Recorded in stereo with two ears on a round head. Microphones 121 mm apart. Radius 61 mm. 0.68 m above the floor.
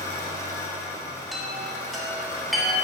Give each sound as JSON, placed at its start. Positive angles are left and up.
{"t": 0.0, "sound": "an engine running", "side_deg": 25, "distance_m": 1.4}
{"t": 1.3, "sound": "a chime", "side_deg": 0, "distance_m": 1.3}